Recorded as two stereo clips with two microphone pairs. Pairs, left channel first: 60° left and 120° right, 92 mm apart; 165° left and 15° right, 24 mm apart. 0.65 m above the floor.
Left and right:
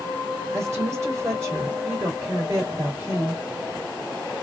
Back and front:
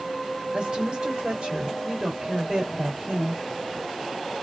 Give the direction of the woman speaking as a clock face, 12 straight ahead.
2 o'clock.